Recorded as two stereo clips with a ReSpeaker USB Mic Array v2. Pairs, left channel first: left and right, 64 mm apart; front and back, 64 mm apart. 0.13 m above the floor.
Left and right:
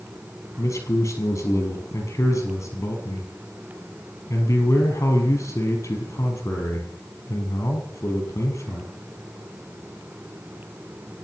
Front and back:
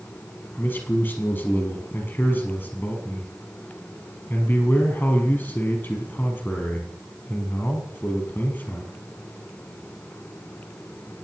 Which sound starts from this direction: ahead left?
A man speaking, at 0.6 s.